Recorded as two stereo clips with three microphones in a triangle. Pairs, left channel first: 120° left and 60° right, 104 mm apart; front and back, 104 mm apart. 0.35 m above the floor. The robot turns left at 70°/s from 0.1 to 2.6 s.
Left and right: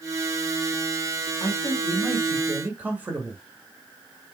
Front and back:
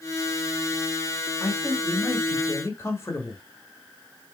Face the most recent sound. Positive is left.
turn(degrees=-10)